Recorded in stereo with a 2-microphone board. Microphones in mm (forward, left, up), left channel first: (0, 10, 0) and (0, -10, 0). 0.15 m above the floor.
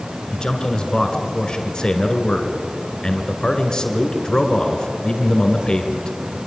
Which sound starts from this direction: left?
A man speaking, at 0.3 s.